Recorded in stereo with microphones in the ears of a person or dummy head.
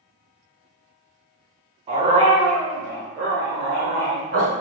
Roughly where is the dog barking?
Right.